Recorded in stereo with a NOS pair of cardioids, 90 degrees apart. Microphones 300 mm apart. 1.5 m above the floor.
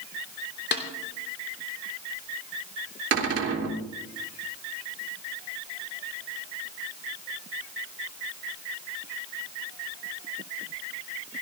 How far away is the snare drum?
About 3 m.